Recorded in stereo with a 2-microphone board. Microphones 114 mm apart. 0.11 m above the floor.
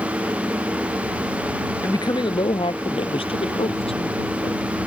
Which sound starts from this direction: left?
A woman speaking, at 1.8 s.